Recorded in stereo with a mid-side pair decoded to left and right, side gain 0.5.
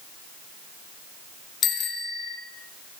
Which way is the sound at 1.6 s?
65° left.